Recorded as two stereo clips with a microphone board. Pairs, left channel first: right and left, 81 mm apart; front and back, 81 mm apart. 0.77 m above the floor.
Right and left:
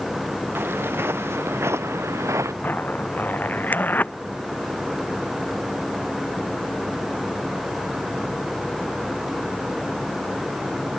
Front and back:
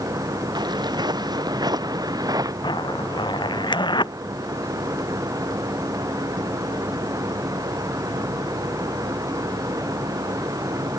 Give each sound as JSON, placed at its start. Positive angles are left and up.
{"t": 0.6, "sound": "footsteps", "azimuth_deg": 155}
{"t": 2.6, "sound": "a zipper", "azimuth_deg": -20}